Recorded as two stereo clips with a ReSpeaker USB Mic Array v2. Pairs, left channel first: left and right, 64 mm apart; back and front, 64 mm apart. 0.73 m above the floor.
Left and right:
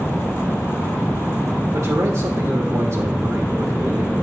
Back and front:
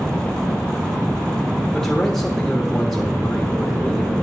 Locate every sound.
1.7 s a man speaking: 100° right, 1.2 m